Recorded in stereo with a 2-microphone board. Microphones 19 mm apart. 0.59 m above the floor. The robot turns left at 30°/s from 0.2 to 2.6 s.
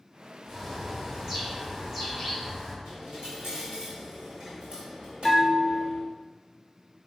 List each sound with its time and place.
0.4 s a bird: 30° right (ahead or behind), 1.3 m; by 2.8 s 15° right (ahead or behind), 1.3 m
2.9 s a dropped coin: 55° right (ahead or behind), 1.7 m
5.2 s a bell: 20° left (ahead or behind), 0.5 m